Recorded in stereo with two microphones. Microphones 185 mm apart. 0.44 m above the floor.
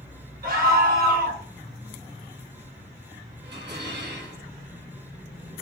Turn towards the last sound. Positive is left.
turn(degrees=-75)  # may be behind; listen again after turning